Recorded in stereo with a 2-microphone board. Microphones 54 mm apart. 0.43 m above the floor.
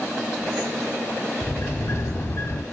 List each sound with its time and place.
1.4 s a sliding door: 60° left (ahead or behind), 0.7 m